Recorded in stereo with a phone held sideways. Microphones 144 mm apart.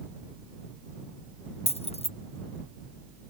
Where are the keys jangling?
45° left (ahead or behind).